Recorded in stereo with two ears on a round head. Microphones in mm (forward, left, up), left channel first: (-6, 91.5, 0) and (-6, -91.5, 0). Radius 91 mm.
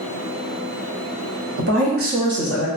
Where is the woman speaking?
60° right (ahead or behind), 1.1 m; by 2.7 s 25° left (ahead or behind), 0.6 m.